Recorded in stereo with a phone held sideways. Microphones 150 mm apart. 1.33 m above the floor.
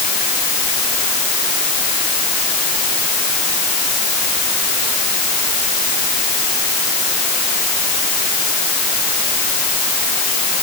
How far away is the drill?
I don't hear a drill.